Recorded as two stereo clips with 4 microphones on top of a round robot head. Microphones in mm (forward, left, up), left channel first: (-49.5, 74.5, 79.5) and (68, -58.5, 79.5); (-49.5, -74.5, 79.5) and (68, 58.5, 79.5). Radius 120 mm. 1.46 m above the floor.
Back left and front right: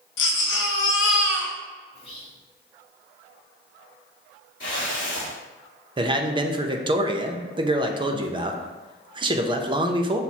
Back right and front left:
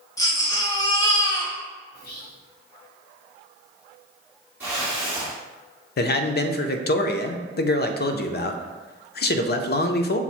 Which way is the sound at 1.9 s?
170° right.